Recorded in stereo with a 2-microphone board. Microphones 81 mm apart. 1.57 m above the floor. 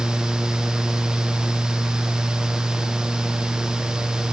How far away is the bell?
No bell in this recording.